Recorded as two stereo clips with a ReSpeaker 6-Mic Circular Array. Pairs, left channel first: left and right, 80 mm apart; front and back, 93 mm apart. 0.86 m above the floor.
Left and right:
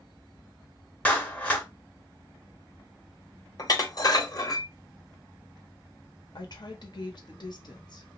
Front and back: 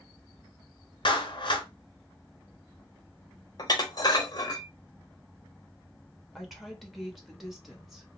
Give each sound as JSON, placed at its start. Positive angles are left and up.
{"t": 1.1, "sound": "a clap", "azimuth_deg": 20, "distance_m": 0.7}
{"t": 3.6, "sound": "dishes clattering", "azimuth_deg": 50, "distance_m": 0.8}
{"t": 6.3, "sound": "a woman speaking", "azimuth_deg": 90, "distance_m": 0.9}